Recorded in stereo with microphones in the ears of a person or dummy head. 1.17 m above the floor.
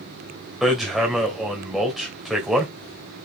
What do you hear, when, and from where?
0.6 s hammering: centre (ahead or behind), 2 m